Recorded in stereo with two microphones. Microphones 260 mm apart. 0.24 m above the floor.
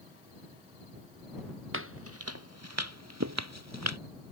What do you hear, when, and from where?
1.7 s footsteps: 55° right (ahead or behind); by 4.0 s 85° right